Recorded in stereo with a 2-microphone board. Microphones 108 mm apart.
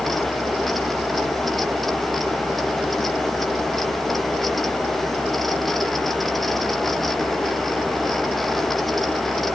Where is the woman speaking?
No woman speaking in this recording.